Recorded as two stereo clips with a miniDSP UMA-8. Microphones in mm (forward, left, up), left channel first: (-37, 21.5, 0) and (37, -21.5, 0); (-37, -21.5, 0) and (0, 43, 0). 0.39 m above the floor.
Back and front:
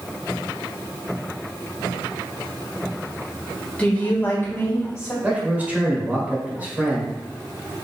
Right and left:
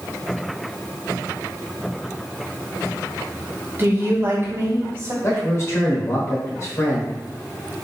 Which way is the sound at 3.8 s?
90° left.